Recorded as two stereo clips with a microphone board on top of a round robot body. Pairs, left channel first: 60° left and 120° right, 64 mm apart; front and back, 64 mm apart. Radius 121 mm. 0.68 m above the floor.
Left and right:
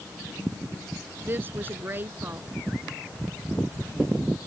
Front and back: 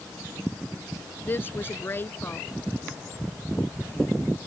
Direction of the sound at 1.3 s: 55° right.